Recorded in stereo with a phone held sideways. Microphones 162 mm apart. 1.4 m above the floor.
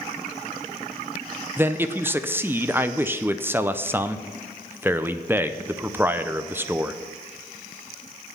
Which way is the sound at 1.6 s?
15° right (ahead or behind).